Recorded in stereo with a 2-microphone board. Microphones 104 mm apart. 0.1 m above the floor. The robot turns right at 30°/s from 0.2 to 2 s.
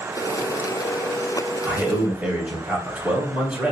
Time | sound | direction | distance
1.6 | a man speaking | 10° right (ahead or behind) | 1.5 m